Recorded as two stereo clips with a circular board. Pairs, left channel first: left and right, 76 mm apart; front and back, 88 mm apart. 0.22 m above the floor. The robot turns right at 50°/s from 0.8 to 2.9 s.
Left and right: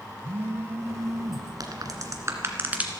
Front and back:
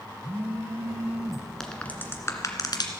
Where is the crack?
80° right, 1.8 m; by 2.9 s 20° right, 1.8 m.